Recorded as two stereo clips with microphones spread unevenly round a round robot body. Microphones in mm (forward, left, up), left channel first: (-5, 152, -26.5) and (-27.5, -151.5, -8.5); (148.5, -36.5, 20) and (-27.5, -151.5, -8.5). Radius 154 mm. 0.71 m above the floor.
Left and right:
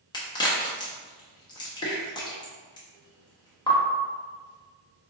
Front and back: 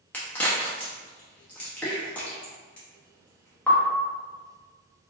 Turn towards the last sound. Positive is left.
turn(degrees=125)